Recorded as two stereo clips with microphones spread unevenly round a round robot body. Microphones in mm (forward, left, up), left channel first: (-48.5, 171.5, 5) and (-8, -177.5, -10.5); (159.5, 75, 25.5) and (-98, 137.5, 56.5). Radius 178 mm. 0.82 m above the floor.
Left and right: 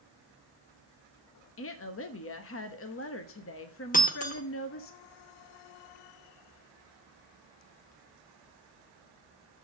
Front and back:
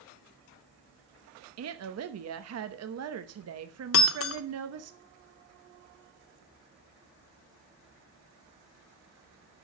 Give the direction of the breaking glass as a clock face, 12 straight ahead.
11 o'clock.